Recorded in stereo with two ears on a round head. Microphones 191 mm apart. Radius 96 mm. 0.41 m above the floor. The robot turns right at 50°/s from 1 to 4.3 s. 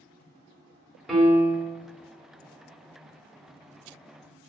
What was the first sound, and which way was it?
A piano, centre (ahead or behind).